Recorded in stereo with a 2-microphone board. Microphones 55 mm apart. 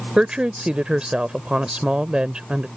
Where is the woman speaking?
20° right (ahead or behind).